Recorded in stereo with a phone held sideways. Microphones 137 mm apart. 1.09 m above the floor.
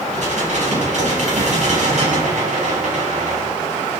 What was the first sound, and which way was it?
Dishes clattering, 60° right (ahead or behind).